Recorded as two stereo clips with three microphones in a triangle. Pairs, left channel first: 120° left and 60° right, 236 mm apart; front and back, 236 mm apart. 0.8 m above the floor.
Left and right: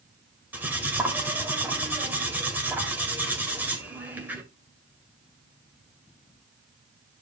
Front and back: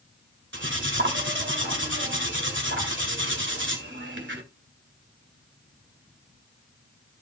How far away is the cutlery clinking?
About 2 m.